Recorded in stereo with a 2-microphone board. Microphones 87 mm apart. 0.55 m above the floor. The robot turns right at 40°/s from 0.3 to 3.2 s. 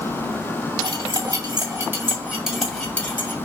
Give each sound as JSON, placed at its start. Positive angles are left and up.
{"t": 0.8, "sound": "cutlery clinking", "side_deg": -70, "distance_m": 2.0}